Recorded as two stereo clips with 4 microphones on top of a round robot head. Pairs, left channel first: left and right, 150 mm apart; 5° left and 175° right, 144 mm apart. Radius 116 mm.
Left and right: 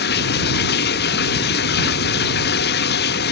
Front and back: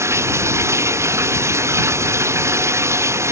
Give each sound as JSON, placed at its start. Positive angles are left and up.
{"t": 0.0, "sound": "running water", "azimuth_deg": 115}